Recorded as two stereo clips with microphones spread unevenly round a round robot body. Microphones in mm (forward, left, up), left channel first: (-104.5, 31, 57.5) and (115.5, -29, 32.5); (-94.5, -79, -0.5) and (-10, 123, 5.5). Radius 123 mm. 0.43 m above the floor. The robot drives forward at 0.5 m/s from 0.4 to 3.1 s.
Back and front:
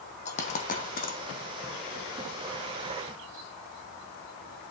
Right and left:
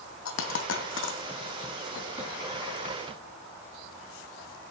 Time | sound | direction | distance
0.2 | a dropped coin | 135° right | 1.6 m